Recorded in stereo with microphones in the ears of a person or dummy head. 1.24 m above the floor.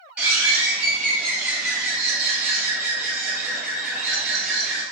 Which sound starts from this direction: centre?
A bird, at 0.2 s.